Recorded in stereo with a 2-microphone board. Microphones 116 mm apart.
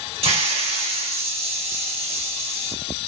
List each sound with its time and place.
0.2 s a hiss: 55° right (ahead or behind), 1.9 m